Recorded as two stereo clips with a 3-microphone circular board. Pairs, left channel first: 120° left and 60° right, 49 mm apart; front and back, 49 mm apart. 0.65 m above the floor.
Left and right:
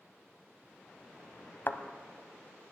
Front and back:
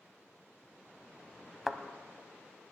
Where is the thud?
100° left, 0.7 m.